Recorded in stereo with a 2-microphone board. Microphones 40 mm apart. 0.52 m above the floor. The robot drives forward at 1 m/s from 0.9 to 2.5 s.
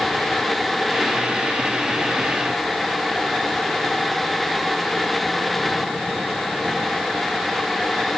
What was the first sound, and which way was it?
Only background noise.